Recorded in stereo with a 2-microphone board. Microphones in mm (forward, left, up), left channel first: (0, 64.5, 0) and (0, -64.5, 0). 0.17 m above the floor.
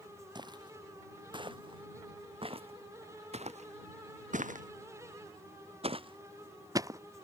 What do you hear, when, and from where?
0.3 s footsteps: 35° right (ahead or behind); by 7.0 s 25° right (ahead or behind)